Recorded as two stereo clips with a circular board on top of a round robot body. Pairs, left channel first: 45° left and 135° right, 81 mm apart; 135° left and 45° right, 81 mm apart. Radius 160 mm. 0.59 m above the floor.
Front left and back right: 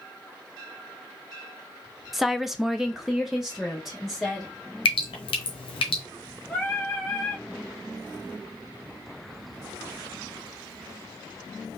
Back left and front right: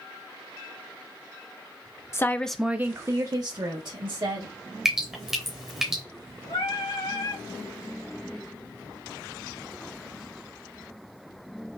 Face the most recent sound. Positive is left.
turn(degrees=120)